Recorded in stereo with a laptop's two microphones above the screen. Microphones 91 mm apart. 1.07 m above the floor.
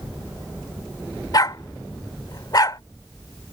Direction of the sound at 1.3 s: 45° left (ahead or behind).